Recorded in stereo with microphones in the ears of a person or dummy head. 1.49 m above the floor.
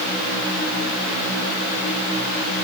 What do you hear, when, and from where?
Only background noise.